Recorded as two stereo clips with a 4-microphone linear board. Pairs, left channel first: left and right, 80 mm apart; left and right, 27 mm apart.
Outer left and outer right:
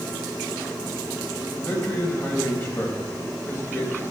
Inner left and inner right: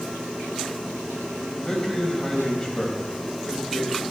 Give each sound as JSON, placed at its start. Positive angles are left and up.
{"t": 1.6, "sound": "a man speaking", "side_deg": 35, "distance_m": 4.0}